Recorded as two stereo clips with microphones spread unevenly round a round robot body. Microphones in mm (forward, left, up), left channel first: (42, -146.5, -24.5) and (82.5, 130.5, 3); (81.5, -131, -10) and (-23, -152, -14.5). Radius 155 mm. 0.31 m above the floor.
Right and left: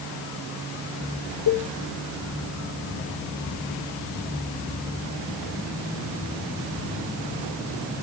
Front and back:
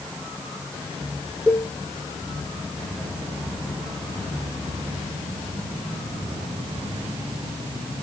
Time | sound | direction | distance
1.5 | a cowbell | 90° right | 3 m